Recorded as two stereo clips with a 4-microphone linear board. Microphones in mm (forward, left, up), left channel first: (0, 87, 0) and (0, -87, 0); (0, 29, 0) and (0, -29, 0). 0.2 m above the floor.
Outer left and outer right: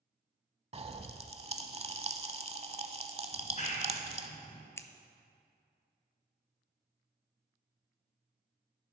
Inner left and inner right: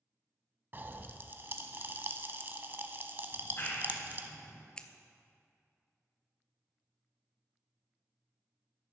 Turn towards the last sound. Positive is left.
turn(degrees=15)  # may be behind; listen again after turning